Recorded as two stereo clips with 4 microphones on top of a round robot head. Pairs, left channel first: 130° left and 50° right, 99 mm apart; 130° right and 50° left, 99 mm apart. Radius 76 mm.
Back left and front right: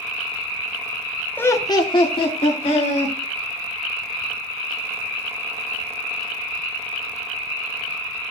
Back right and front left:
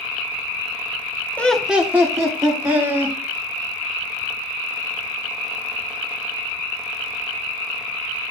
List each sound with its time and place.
1.4 s laughter: 175° left, 0.8 m; by 3.1 s 100° left, 2.5 m